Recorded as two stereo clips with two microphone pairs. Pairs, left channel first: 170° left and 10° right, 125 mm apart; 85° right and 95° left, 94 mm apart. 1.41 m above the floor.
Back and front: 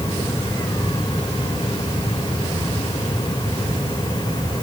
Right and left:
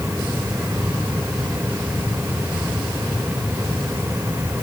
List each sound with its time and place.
Only background noise.